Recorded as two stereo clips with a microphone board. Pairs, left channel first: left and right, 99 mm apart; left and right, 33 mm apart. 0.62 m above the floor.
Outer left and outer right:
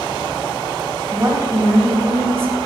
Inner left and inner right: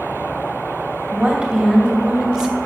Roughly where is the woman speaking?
Right.